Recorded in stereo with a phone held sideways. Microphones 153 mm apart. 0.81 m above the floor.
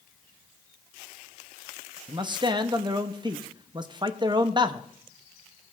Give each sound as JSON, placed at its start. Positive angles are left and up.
{"t": 2.1, "sound": "a man speaking", "side_deg": -30, "distance_m": 0.6}